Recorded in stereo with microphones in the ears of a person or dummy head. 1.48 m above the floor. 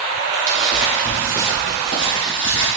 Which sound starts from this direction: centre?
Footsteps, at 0.5 s.